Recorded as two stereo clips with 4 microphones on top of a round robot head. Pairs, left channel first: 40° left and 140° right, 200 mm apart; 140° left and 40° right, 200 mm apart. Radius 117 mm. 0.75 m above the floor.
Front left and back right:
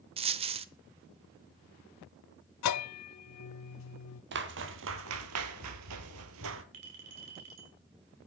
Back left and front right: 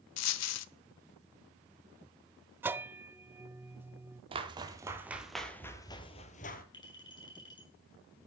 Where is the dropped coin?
155° left, 0.8 m.